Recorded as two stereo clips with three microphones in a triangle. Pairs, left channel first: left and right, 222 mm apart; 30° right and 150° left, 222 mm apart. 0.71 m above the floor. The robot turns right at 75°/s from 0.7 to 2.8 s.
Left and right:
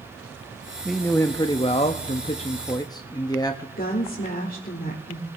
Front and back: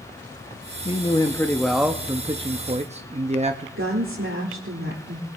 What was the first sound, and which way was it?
A man speaking, 5° right.